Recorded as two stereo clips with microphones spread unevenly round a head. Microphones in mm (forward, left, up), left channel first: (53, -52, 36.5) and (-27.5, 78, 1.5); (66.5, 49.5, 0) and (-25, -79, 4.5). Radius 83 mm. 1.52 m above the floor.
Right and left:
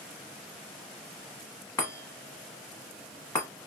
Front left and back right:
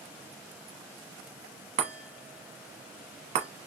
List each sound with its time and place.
1.8 s a chime: 105° right, 1.1 m